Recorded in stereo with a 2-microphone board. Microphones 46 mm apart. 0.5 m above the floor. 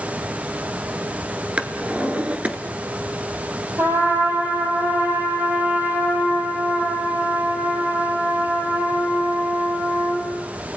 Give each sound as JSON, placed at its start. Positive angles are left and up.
{"t": 1.6, "sound": "a drawer", "side_deg": -30, "distance_m": 1.5}
{"t": 3.8, "sound": "a trumpet", "side_deg": -55, "distance_m": 9.5}